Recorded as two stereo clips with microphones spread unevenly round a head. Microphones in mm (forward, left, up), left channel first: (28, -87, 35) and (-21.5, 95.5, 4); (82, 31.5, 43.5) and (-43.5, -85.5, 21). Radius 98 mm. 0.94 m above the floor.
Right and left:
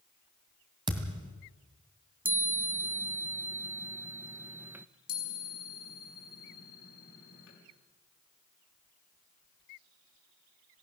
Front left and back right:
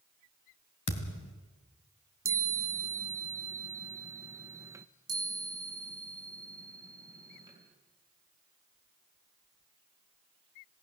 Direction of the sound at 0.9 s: 35° left.